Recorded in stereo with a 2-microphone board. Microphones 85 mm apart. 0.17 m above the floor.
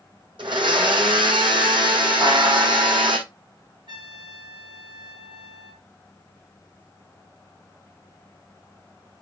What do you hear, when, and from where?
0.4 s a blender: 70° right (ahead or behind), 1.4 m
2.2 s a buzzer: 75° right (ahead or behind), 5 m
3.9 s a trumpet: 65° right (ahead or behind), 2.0 m